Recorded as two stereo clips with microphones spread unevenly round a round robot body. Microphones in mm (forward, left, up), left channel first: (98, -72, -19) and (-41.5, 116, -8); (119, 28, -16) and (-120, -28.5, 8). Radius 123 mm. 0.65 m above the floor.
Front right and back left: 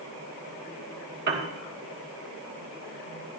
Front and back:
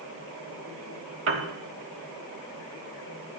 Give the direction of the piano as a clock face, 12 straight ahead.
6 o'clock.